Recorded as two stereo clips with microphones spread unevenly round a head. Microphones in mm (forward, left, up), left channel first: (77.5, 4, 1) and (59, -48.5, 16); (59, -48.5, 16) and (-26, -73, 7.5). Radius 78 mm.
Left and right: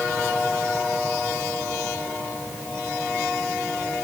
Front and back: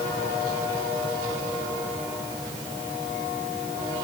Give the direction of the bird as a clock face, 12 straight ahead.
I don't hear a bird.